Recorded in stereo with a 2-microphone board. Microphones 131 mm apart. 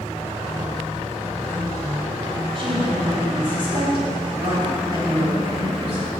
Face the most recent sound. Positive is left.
turn(degrees=-45)  # may be behind; listen again after turning